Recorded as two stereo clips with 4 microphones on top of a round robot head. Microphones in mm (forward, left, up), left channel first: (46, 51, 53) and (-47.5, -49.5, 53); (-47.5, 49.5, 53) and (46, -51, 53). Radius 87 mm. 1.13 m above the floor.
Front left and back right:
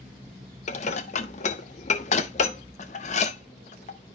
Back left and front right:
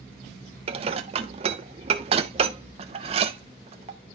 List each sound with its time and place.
0.7 s dishes clattering: 5° left, 0.6 m